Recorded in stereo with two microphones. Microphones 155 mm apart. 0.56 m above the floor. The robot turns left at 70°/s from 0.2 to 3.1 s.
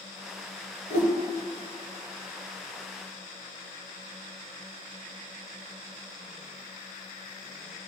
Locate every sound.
0.9 s a whoosh: 55° left (ahead or behind), 2 m; by 1.1 s 70° left (ahead or behind), 2 m